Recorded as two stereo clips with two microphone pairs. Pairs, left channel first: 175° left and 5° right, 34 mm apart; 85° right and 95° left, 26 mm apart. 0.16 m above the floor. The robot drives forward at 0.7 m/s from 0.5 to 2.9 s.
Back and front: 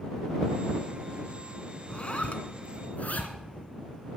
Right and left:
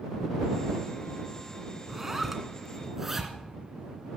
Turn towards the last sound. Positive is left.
turn(degrees=165)